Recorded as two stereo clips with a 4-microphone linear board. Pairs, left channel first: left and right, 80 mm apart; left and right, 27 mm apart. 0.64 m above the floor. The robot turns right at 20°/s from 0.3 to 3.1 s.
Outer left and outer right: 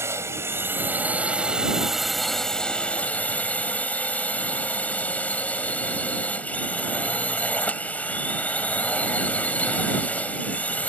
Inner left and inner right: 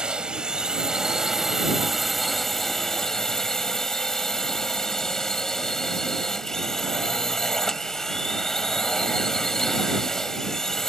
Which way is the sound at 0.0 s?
35° right.